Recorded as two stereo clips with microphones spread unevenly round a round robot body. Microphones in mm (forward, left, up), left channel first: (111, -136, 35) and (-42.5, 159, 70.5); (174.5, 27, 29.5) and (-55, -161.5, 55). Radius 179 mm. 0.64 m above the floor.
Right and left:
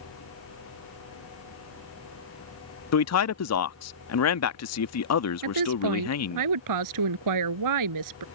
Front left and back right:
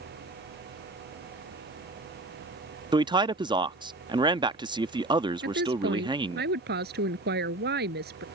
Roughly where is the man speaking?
Ahead right.